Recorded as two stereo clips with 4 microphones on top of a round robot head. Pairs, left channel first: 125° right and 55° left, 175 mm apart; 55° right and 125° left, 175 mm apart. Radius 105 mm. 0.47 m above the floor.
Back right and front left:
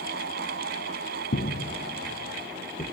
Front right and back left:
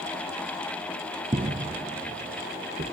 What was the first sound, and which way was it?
Footsteps, 165° right.